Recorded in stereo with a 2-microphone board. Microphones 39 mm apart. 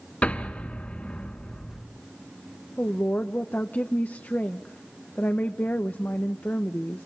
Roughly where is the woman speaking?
Left.